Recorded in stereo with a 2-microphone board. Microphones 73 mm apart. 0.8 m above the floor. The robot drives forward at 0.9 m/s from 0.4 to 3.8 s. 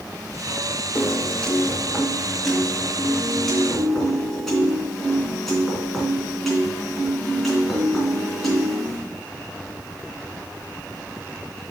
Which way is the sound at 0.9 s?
20° left (ahead or behind).